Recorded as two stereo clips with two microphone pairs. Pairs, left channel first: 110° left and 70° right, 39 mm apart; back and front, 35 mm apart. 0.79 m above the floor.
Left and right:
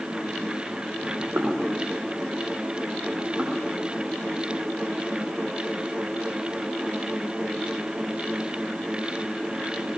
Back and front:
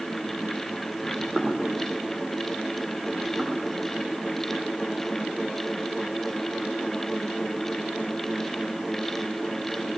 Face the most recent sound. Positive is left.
turn(degrees=-25)